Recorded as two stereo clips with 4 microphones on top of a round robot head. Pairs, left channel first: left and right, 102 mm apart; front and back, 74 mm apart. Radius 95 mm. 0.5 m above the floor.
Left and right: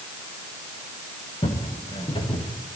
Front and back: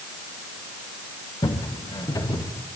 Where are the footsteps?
35° left, 3.5 m; by 2.5 s 45° left, 4 m.